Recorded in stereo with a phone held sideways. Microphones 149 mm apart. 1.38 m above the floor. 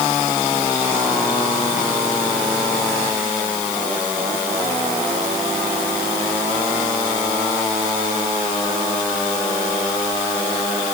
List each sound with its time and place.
Only background noise.